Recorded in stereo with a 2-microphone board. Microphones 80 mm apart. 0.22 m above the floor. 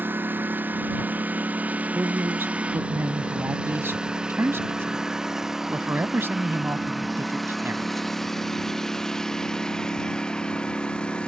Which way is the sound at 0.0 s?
25° right (ahead or behind).